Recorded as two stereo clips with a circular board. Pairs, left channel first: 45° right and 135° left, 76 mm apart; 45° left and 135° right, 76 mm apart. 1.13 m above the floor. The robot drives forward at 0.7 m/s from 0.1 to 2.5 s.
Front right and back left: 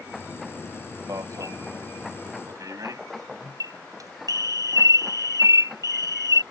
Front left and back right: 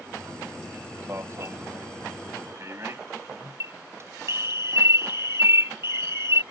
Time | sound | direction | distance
1.1 | an alarm | 175° left | ?